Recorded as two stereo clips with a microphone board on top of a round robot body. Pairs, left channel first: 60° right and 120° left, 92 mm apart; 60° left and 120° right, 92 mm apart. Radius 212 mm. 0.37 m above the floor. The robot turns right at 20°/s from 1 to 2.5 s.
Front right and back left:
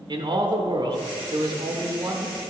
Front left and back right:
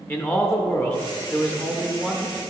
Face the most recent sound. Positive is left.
turn(degrees=150)